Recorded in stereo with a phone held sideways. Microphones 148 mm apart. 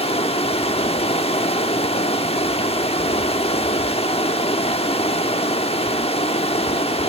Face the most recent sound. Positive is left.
turn(degrees=40)  # may be behind; listen again after turning